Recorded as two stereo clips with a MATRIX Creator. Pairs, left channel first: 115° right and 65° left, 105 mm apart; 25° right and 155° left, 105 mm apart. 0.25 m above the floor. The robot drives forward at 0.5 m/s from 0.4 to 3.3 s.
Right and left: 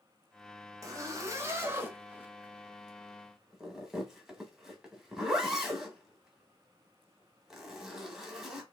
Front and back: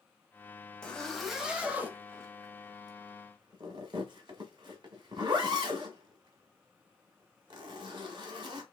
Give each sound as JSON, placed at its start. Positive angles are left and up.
{"t": 0.8, "sound": "a zipper", "azimuth_deg": 50, "distance_m": 1.1}